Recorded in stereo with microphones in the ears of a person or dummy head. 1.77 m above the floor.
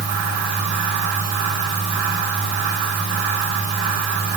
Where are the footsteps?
No footsteps in this recording.